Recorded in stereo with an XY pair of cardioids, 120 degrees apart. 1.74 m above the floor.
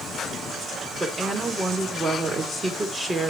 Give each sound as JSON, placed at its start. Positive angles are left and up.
{"t": 1.0, "sound": "a woman speaking", "azimuth_deg": -20, "distance_m": 3.0}